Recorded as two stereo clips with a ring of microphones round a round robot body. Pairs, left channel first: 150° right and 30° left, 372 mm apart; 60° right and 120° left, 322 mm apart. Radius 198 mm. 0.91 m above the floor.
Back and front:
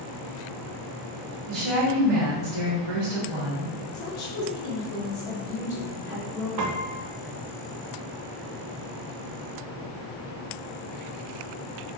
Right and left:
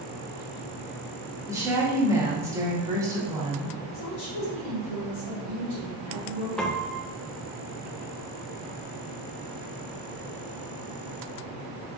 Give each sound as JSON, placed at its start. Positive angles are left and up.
{"t": 1.5, "sound": "a woman speaking", "azimuth_deg": 40, "distance_m": 1.4}
{"t": 3.9, "sound": "a woman speaking", "azimuth_deg": -110, "distance_m": 1.8}
{"t": 6.6, "sound": "a piano", "azimuth_deg": 30, "distance_m": 0.6}